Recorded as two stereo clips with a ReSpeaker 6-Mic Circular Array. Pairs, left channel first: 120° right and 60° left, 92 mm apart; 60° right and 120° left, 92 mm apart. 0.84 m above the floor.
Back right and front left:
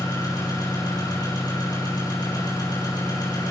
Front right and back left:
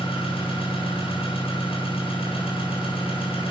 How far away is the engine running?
About 8 m.